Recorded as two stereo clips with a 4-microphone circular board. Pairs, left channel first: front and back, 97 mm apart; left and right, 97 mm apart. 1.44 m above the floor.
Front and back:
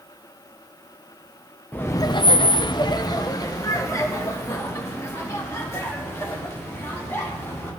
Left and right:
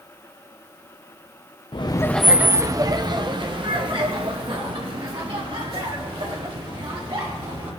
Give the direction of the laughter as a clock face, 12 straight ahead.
10 o'clock.